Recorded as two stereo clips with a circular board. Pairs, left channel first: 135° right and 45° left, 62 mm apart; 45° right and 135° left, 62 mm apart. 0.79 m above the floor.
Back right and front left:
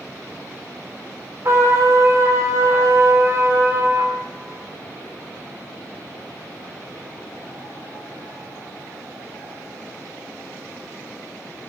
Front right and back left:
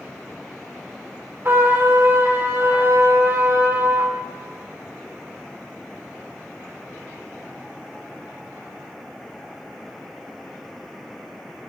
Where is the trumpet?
85° left, 1.4 m.